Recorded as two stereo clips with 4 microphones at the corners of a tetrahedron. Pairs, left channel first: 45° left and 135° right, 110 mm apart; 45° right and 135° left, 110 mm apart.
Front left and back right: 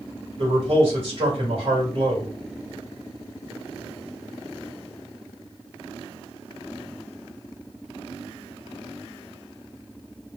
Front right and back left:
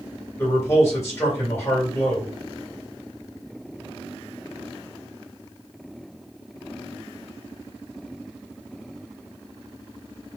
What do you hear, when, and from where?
0.4 s a man speaking: 110° right, 2.5 m